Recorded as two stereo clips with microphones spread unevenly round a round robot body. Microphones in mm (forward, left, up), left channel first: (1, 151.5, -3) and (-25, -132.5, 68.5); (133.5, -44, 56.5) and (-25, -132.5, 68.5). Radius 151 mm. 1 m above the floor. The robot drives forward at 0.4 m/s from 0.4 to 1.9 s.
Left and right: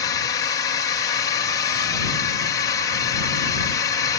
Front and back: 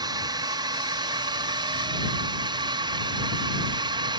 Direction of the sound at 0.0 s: 145° left.